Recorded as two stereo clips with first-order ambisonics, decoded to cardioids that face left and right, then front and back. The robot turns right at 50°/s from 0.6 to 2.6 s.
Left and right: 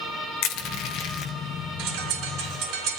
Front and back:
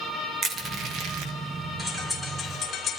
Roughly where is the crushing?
Behind left.